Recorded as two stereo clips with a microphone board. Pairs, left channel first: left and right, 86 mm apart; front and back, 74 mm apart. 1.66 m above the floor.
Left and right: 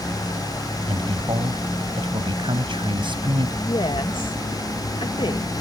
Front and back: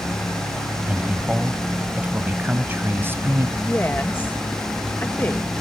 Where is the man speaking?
105° right; by 3.5 s 120° right.